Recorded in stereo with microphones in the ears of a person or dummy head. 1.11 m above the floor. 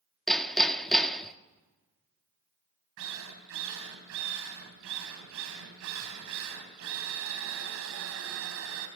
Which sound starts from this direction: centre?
Hammering, at 0.3 s.